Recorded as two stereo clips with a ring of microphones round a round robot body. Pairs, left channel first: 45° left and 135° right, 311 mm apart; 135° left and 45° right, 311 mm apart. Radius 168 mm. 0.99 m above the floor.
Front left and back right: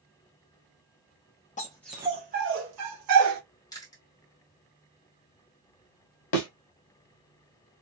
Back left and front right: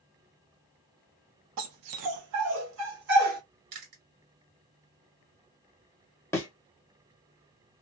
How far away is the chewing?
About 1.6 m.